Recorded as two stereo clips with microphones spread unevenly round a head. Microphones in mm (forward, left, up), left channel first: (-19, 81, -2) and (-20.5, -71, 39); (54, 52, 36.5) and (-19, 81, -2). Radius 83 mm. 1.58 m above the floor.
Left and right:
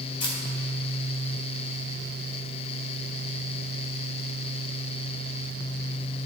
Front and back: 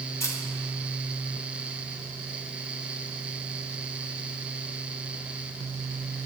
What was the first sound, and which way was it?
A camera shutter, 20° left.